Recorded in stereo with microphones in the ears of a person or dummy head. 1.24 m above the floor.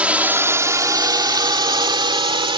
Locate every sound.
0.0 s a drone: 10° right (ahead or behind); by 2.6 s 30° right (ahead or behind)